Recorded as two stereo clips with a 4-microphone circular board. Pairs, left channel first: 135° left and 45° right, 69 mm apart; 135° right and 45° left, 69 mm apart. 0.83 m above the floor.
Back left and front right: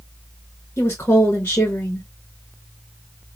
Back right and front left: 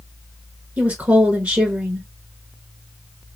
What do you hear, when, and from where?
0.8 s a woman speaking: 95° left, 1.2 m